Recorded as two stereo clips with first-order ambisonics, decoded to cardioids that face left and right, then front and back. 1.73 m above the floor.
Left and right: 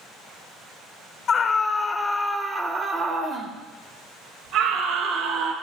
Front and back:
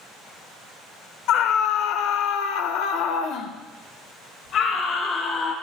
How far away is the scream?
About 1.2 m.